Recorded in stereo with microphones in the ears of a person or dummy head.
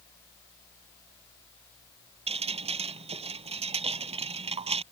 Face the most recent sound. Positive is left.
turn(degrees=-30)  # may be behind; listen again after turning